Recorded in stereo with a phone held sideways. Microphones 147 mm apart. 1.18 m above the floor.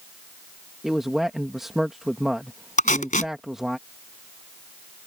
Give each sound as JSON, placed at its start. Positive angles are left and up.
{"t": 0.8, "sound": "a man speaking", "side_deg": 0}
{"t": 2.8, "sound": "tape being pulled", "side_deg": 55}